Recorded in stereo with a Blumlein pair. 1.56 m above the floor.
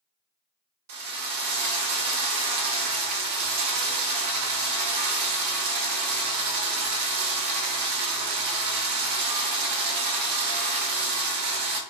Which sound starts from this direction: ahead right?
A drill, at 0.9 s.